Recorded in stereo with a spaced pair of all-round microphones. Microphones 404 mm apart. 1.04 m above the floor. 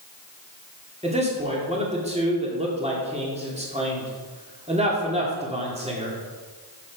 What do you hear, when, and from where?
1.0 s a man speaking: 15° right (ahead or behind), 2.5 m